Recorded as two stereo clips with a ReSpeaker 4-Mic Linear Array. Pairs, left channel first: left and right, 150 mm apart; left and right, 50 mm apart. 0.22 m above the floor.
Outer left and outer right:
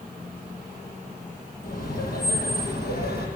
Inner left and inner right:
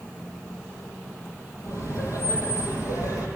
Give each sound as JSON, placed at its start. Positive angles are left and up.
{"t": 1.6, "sound": "laughter", "side_deg": 75, "distance_m": 6.5}